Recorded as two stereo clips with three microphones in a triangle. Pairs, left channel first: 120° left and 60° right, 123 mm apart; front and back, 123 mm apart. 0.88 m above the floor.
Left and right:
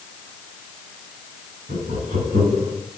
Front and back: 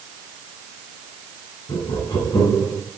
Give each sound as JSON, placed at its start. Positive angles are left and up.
{"t": 1.7, "sound": "laughter", "azimuth_deg": -55, "distance_m": 6.5}